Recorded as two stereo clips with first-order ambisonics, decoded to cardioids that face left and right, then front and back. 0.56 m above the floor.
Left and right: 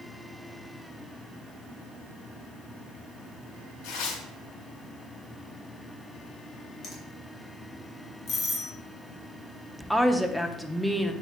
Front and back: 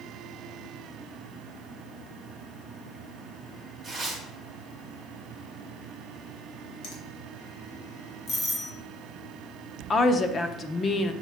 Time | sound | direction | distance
3.8 | tearing paper | 95° left | 3 m
6.8 | a finger snap | 30° left | 3 m
8.3 | a doorbell | 50° left | 1.5 m
9.9 | a woman speaking | 10° left | 0.6 m